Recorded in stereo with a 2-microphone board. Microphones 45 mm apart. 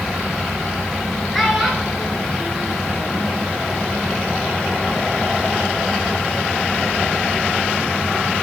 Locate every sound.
1.3 s a child speaking: centre (ahead or behind), 4 m